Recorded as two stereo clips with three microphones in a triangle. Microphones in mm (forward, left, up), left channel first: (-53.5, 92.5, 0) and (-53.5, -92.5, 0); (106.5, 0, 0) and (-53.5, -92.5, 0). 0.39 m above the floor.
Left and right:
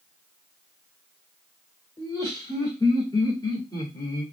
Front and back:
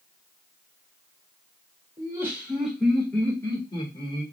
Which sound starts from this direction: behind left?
Laughter, at 2.0 s.